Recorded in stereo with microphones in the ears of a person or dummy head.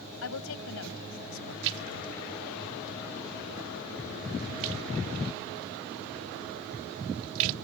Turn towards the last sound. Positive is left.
turn(degrees=-75)  # may be behind; listen again after turning